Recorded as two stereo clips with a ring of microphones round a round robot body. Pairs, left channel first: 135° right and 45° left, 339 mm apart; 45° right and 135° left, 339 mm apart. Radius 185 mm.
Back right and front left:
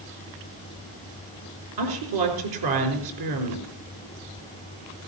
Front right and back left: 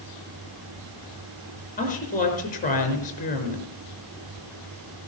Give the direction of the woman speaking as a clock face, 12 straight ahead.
11 o'clock.